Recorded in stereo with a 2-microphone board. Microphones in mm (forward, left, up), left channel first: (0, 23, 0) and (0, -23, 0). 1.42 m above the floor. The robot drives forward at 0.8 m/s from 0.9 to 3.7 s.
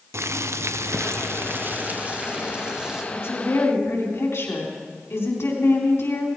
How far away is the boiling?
About 0.6 m.